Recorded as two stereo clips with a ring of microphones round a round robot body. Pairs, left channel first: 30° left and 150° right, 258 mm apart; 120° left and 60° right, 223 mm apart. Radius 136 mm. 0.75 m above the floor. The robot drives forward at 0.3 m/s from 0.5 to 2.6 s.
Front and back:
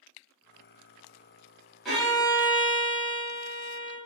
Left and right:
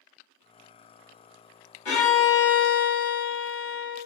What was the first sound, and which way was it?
A violin, 120° left.